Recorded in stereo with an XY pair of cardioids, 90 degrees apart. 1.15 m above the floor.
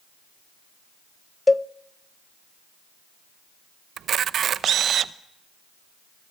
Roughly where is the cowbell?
Ahead.